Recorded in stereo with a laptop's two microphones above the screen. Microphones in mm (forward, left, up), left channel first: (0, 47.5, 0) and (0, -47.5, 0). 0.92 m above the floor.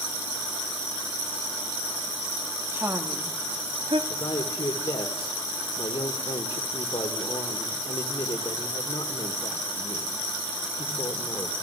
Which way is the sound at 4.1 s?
80° left.